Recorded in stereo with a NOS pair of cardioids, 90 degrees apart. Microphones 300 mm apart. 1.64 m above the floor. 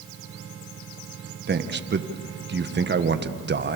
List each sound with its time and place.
1.5 s a man speaking: 35° right, 1.7 m